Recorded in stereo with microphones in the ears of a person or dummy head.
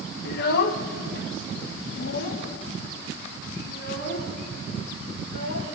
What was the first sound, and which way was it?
A child speaking, 55° left (ahead or behind).